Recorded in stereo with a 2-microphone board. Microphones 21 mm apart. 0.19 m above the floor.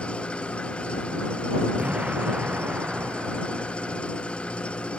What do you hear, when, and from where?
0.0 s an engine running: 60° left (ahead or behind)
1.8 s an explosion: 85° right